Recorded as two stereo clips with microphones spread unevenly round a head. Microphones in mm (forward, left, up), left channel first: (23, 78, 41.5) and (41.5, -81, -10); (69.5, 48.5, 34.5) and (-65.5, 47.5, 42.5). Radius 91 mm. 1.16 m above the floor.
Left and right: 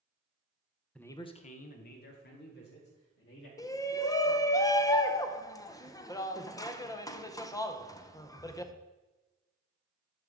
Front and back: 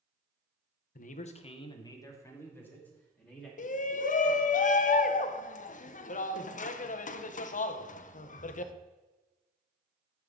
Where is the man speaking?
5° left, 0.7 m; by 3.5 s 80° left, 2.5 m.